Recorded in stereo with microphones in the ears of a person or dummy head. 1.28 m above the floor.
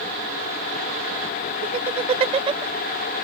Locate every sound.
1.6 s laughter: 40° right (ahead or behind); by 2.6 s 30° right (ahead or behind)